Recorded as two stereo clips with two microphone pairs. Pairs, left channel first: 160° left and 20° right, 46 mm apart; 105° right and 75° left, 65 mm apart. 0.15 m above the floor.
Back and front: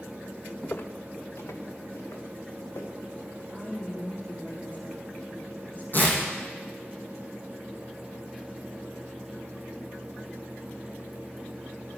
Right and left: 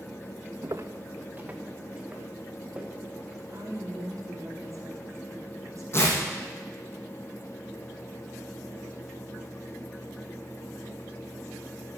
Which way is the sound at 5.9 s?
155° right.